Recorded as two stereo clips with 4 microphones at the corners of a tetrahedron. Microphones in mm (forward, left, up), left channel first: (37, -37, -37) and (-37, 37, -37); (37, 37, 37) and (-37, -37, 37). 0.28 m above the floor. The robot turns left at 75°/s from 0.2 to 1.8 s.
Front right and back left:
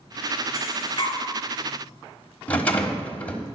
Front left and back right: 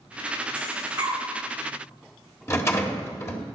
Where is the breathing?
55° right, 3.5 m; by 1.2 s 100° right, 3.5 m.